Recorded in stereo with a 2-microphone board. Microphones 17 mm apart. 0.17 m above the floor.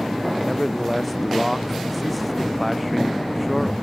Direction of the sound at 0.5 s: 10° left (ahead or behind).